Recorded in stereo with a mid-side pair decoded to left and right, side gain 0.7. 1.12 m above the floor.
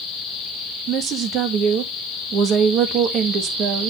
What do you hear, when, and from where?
0.9 s a woman speaking: 55° right, 1.5 m